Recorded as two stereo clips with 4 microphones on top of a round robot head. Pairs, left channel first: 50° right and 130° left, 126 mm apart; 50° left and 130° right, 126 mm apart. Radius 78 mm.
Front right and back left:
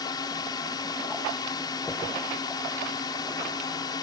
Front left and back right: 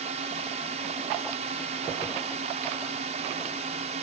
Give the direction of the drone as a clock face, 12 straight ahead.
4 o'clock.